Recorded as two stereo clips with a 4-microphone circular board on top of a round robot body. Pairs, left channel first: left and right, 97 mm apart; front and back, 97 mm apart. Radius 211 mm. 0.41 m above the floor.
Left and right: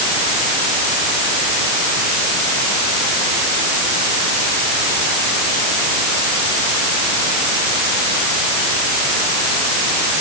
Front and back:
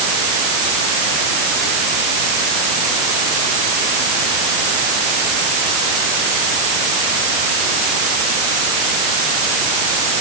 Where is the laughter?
I don't hear laughter.